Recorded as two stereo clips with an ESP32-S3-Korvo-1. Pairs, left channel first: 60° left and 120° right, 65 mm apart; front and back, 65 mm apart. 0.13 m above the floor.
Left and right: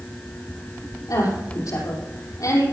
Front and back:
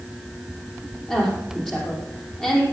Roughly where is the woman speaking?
Left.